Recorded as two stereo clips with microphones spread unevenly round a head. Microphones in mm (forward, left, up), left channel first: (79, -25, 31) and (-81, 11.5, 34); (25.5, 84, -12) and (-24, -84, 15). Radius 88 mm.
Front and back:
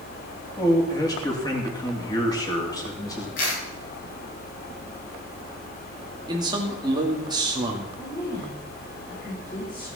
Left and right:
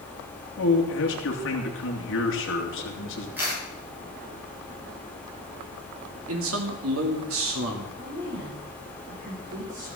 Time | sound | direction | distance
0.6 | a man speaking | 55° left | 3 m
3.4 | a camera shutter | 25° right | 7.5 m
6.3 | a man speaking | 125° right | 2.5 m
8.0 | a woman speaking | 80° right | 4.5 m